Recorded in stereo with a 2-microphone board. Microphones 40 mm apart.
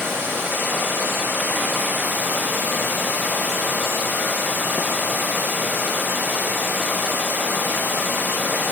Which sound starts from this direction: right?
Running water, at 0.0 s.